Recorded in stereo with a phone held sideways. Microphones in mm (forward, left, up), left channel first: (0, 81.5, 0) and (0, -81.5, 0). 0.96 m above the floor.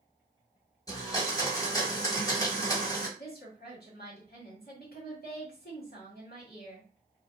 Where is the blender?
20° left (ahead or behind), 1.2 m.